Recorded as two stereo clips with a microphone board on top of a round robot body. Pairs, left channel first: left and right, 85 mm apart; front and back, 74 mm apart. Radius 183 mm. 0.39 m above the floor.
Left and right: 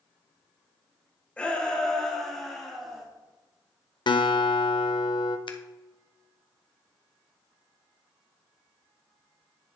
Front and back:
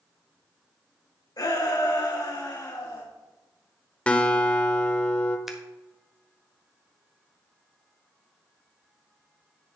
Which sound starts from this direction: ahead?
A shout, at 1.4 s.